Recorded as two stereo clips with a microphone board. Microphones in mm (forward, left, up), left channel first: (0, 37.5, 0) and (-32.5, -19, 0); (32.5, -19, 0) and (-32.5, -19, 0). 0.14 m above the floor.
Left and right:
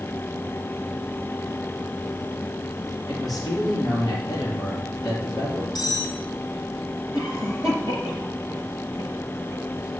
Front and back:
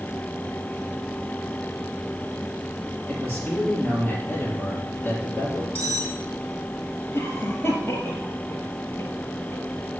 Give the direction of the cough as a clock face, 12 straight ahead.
10 o'clock.